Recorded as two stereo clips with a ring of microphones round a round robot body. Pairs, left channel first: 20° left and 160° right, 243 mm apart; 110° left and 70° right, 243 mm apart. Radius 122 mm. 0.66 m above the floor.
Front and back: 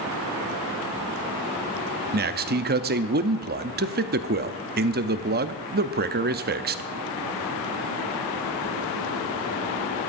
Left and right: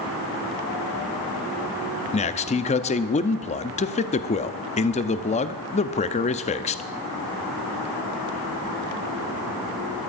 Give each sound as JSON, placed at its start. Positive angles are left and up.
{"t": 2.1, "sound": "a man speaking", "azimuth_deg": 165, "distance_m": 0.7}